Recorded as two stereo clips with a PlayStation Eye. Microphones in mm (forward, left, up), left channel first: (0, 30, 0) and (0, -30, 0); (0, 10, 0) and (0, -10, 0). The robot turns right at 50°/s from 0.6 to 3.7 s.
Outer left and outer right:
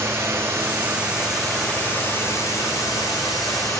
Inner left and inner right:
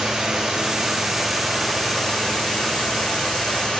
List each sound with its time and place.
0.0 s running water: 40° right, 7 m; by 3.8 s 115° left, 7 m